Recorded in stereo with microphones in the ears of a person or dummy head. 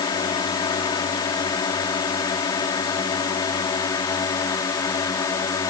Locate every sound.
0.0 s a drone: 20° left (ahead or behind)